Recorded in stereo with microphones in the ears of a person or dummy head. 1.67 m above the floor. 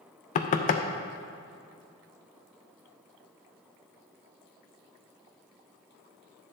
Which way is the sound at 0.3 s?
40° left (ahead or behind).